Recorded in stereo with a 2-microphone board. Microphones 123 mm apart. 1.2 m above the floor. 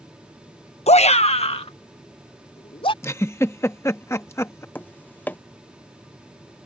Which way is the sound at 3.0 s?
25° left (ahead or behind).